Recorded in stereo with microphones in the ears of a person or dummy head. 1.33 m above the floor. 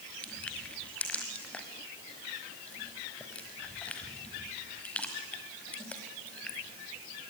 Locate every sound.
0.2 s crushing: 5° left (ahead or behind), 1.3 m